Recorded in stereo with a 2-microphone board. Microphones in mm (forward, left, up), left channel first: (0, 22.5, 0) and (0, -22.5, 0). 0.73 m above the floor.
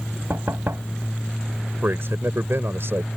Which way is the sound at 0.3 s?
75° right (ahead or behind).